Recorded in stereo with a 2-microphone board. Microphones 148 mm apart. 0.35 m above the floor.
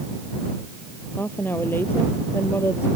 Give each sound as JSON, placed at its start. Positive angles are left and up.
{"t": 1.2, "sound": "a woman speaking", "side_deg": 15}